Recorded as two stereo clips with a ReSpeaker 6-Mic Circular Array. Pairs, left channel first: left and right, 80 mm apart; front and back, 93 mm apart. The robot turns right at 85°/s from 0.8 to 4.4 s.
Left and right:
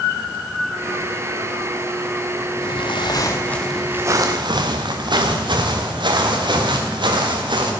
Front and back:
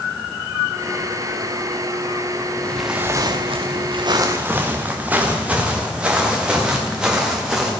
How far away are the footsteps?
About 1.3 m.